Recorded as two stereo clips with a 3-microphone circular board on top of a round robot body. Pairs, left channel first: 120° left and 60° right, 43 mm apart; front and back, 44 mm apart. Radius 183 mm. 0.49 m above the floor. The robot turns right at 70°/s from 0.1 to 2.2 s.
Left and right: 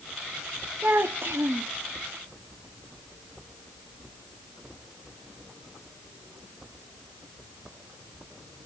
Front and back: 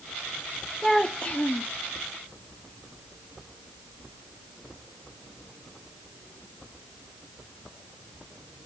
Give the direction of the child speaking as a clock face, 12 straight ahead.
3 o'clock.